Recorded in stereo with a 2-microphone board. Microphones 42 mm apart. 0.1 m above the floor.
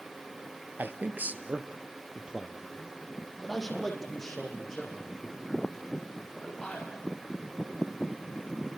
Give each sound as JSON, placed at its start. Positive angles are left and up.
{"t": 0.8, "sound": "a man speaking", "side_deg": -55, "distance_m": 1.7}